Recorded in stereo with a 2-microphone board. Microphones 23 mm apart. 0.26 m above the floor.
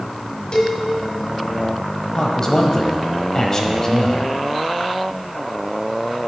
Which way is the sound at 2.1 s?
30° left (ahead or behind).